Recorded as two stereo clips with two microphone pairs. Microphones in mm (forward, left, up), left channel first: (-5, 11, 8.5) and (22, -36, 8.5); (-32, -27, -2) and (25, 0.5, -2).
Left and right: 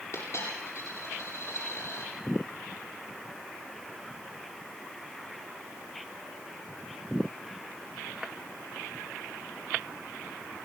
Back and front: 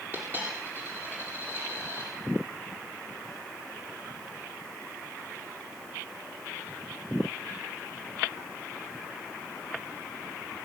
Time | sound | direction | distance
0.1 | a dropped coin | 85° left | 8.5 m